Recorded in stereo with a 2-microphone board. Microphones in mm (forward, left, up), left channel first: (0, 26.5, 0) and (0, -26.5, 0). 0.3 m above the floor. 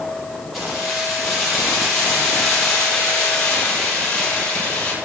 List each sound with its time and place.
0.5 s keys jangling: centre (ahead or behind), 7.5 m; by 4.9 s 15° left (ahead or behind), 7 m